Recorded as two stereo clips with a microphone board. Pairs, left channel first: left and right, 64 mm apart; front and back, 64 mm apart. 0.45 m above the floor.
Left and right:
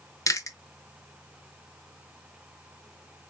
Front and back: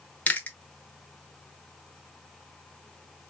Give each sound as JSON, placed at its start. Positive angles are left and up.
{"t": 0.3, "sound": "chewing", "azimuth_deg": 60, "distance_m": 0.6}